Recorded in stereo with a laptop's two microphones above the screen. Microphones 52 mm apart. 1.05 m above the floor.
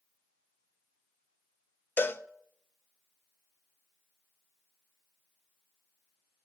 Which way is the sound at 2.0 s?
40° left (ahead or behind).